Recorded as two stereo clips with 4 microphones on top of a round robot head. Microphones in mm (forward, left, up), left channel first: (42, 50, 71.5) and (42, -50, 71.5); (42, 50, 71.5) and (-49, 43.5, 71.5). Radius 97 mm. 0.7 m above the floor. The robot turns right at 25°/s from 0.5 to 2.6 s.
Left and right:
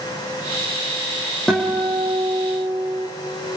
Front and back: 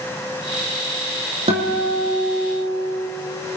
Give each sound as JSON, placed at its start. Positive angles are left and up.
{"t": 1.5, "sound": "a guitar", "azimuth_deg": 175, "distance_m": 5.0}